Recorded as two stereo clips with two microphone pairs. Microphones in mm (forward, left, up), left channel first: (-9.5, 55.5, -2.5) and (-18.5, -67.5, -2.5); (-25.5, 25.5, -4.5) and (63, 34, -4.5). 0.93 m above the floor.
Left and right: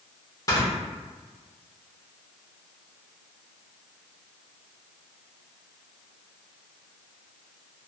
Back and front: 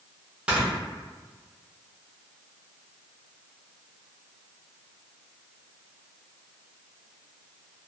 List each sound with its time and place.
0.5 s snoring: 65° left, 0.9 m